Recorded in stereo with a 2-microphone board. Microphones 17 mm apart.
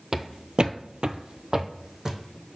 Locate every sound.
0.1 s footsteps: 30° right (ahead or behind), 0.7 m; by 2.2 s 40° right (ahead or behind), 1.2 m